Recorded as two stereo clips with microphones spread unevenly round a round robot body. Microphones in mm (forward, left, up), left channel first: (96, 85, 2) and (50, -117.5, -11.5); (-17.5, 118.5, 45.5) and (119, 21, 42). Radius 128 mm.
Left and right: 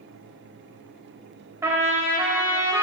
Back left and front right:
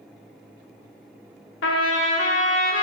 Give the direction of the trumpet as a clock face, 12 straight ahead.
6 o'clock.